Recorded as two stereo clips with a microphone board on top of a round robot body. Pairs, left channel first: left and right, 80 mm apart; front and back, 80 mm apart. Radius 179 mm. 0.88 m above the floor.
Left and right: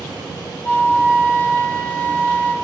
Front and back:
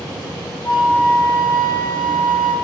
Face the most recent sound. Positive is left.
turn(degrees=25)